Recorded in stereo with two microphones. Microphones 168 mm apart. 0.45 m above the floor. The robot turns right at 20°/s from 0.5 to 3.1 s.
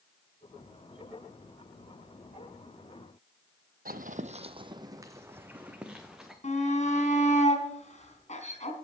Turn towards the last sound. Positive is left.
turn(degrees=45)  # may be behind; listen again after turning